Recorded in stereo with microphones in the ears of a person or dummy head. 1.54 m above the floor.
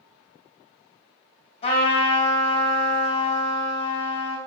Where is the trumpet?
40° left (ahead or behind), 2 m.